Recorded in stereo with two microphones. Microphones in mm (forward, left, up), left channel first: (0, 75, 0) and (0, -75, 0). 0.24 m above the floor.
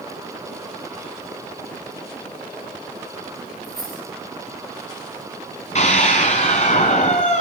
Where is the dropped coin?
85° right, 7 m.